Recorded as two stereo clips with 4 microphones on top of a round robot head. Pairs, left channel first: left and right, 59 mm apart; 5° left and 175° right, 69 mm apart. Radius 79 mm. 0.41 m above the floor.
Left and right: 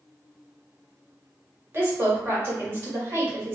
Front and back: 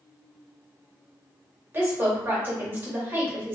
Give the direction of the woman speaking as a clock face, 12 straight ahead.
4 o'clock.